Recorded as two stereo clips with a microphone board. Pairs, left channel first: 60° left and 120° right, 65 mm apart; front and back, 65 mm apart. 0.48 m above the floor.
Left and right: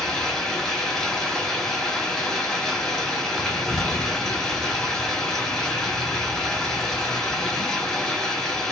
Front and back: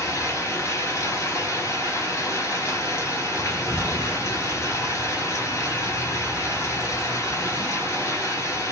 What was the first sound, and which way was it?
Running water, 20° right.